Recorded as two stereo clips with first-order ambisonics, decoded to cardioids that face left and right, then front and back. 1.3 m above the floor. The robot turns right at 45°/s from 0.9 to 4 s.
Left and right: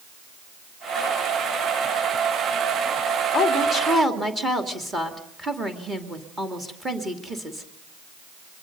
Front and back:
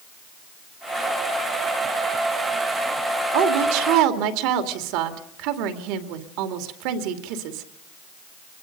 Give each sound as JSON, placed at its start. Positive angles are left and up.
{"t": 3.3, "sound": "a woman speaking", "azimuth_deg": 160, "distance_m": 2.5}